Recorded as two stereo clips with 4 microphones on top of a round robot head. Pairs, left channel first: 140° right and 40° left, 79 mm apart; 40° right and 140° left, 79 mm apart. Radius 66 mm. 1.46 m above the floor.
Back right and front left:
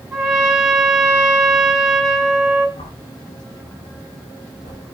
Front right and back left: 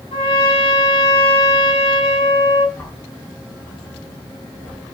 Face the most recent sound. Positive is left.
turn(degrees=-115)